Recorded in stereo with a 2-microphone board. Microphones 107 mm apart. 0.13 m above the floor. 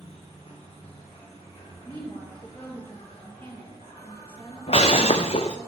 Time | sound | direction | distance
0.0 | an insect | 70° left (ahead or behind) | 4.5 m
1.9 | a woman speaking | 20° left (ahead or behind) | 3.5 m
4.7 | breaking glass | 70° left (ahead or behind) | 1.1 m